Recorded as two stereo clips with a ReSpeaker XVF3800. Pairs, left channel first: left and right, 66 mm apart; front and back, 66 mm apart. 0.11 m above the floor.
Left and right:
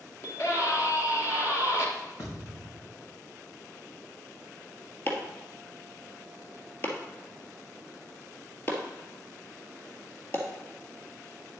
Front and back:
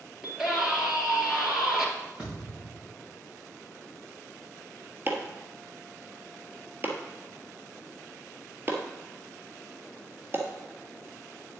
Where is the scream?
100° left, 2.5 m.